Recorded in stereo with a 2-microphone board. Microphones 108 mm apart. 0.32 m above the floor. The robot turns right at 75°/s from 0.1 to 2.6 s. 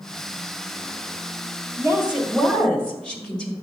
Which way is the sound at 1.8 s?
20° right (ahead or behind).